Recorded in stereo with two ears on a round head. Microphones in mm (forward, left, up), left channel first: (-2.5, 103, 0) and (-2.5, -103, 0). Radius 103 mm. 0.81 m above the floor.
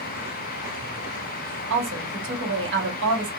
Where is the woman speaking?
55° right (ahead or behind), 1.7 m.